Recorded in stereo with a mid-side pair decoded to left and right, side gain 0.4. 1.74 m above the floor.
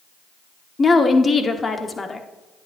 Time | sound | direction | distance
0.8 | a woman speaking | 35° left | 1.3 m